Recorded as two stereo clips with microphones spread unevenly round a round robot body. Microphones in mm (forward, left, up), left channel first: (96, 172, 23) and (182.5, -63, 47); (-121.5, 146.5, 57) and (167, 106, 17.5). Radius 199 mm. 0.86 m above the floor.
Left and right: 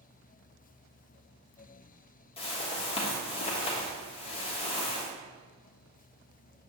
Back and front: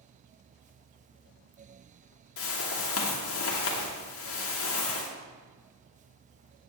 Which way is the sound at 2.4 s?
160° left.